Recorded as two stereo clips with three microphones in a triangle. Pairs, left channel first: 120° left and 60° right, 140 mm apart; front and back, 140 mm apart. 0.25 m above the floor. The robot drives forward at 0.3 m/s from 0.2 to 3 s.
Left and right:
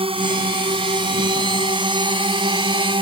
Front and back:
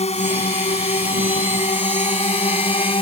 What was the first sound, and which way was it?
A drone, 20° right.